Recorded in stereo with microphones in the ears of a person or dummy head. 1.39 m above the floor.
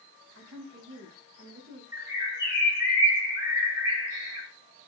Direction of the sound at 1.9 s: 15° right (ahead or behind).